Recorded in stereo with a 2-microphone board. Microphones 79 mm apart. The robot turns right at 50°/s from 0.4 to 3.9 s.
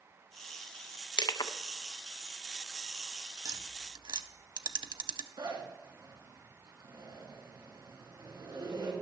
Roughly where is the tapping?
Right.